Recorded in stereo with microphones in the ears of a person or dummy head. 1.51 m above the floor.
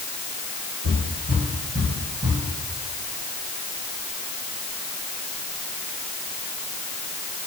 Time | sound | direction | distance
0.8 | footsteps | 45° right (ahead or behind) | 4 m